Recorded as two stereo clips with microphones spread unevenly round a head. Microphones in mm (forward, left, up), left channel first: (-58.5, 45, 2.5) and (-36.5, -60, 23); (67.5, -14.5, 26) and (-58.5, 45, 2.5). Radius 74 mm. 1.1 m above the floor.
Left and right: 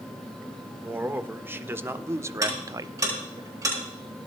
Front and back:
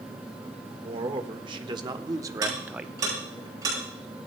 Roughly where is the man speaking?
Behind right.